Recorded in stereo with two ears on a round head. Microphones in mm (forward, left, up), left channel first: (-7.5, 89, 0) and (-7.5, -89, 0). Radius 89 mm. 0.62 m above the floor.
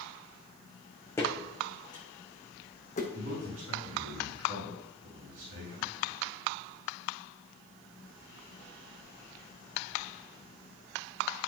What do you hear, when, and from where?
1.2 s footsteps: 15° left (ahead or behind), 3 m; by 3.0 s 40° left (ahead or behind), 2.5 m
3.1 s a man speaking: 70° right (ahead or behind), 5.5 m